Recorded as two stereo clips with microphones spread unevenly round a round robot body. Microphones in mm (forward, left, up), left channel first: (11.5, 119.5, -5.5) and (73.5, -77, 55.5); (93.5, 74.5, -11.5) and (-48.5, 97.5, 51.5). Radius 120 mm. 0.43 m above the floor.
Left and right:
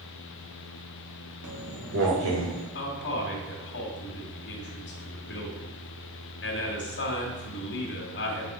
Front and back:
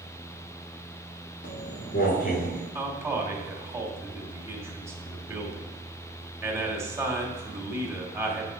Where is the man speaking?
90° left, 2.5 m.